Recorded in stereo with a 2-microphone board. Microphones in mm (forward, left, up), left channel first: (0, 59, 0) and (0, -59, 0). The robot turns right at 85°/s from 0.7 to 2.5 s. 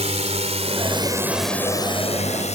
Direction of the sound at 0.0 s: 65° right (ahead or behind).